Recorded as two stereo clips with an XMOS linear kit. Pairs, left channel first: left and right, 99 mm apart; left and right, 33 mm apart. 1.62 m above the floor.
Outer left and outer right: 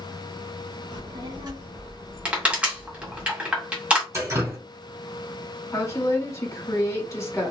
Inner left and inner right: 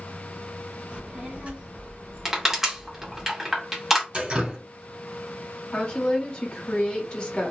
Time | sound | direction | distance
0.9 | a child speaking | 50° right (ahead or behind) | 1.3 m
2.2 | crushing | 15° right (ahead or behind) | 1.3 m
4.1 | dripping | 35° right (ahead or behind) | 3 m
5.7 | a woman speaking | 30° left (ahead or behind) | 1.5 m